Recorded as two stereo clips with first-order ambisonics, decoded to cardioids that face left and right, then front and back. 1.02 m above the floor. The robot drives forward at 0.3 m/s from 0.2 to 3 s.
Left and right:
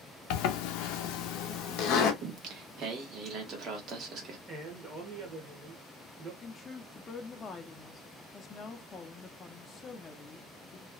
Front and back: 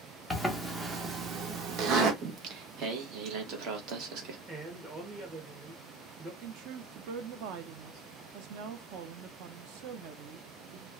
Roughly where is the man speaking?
Behind right.